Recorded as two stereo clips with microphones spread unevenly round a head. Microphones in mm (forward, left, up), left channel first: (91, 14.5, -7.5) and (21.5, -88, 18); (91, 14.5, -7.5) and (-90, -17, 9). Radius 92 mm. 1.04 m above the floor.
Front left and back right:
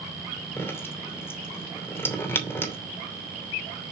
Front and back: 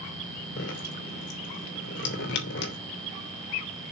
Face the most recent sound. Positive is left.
turn(degrees=-15)